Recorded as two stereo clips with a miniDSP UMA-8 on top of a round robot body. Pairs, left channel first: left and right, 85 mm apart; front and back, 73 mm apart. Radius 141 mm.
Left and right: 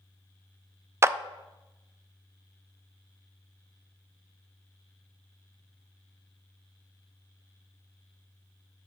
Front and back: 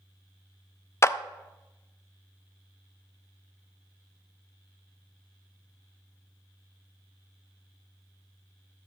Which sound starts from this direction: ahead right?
A clap, at 1.0 s.